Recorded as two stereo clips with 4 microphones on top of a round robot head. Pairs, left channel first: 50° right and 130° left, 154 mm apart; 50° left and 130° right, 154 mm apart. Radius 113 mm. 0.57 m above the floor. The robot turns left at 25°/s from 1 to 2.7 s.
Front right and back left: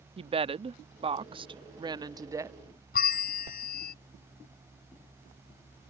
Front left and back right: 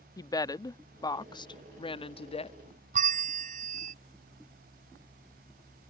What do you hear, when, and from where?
0.2 s a woman speaking: 105° left; by 2.6 s 65° left
2.9 s a bell: 85° right